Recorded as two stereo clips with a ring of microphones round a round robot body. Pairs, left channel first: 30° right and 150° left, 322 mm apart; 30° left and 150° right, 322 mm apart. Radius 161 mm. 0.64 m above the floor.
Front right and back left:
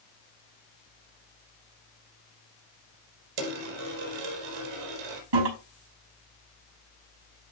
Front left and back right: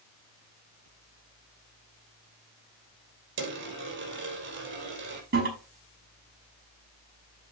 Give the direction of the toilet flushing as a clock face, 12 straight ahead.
7 o'clock.